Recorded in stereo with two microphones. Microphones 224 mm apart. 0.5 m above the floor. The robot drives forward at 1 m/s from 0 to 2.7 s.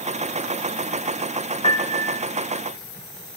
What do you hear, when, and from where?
1.6 s a piano: 20° left (ahead or behind), 0.6 m; by 2.2 s 15° left (ahead or behind), 1.0 m